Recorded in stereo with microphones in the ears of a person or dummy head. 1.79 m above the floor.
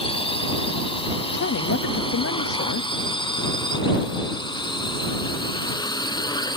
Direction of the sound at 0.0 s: 30° left (ahead or behind).